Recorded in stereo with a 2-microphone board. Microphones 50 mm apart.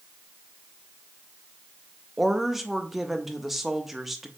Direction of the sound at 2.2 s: 5° right (ahead or behind).